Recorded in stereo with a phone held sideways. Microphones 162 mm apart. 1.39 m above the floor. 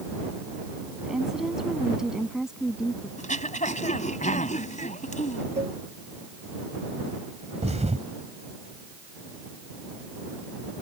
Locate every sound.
1.0 s a woman speaking: 5° right (ahead or behind)
3.2 s throat clearing: 50° left (ahead or behind)
5.6 s a cowbell: 40° right (ahead or behind)
7.6 s a thud: 45° right (ahead or behind)